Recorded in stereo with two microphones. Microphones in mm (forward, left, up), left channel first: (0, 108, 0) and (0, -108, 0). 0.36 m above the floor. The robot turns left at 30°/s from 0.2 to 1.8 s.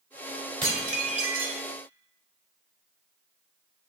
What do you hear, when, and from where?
0.6 s dishes clattering: 20° right (ahead or behind), 1.0 m; by 1.6 s 45° right (ahead or behind), 1.0 m